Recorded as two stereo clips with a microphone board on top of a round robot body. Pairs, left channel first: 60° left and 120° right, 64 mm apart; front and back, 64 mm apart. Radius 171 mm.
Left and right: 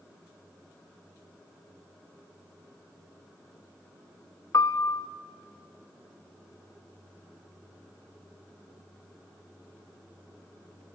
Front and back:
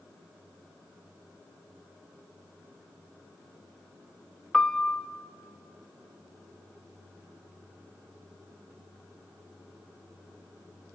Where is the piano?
75° left, 0.7 m.